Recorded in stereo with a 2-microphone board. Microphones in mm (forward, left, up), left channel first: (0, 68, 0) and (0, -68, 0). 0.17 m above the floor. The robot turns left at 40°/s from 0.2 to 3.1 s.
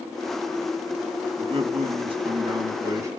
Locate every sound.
1.4 s a man speaking: 80° right, 2.0 m; by 3.1 s 145° right, 2.0 m